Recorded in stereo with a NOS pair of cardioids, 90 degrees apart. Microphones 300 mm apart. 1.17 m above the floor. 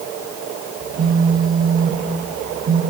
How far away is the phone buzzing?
About 3.5 m.